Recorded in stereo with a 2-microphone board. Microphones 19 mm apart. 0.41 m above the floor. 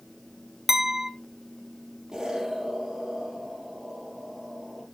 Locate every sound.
0.7 s a clink: 15° right (ahead or behind), 1.1 m
2.1 s an explosion: 25° right (ahead or behind), 4 m